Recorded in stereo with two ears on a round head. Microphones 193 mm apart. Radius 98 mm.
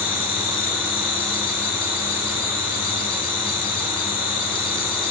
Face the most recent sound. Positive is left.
turn(degrees=25)  # may be behind; listen again after turning